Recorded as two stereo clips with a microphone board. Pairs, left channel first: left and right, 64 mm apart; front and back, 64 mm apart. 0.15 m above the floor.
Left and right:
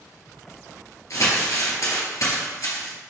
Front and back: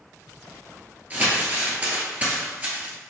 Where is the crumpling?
120° left, 1.5 m.